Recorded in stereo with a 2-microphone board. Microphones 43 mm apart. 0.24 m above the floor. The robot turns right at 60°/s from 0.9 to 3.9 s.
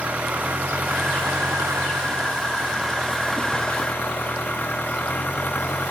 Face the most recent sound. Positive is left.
turn(degrees=35)